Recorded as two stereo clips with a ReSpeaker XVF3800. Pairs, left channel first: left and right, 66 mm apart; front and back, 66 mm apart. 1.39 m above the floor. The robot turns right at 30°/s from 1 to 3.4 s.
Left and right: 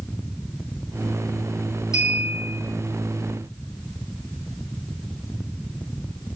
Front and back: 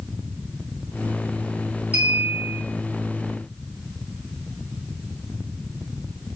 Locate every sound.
1.9 s a clink: 120° left, 3 m; by 2.6 s 140° left, 3 m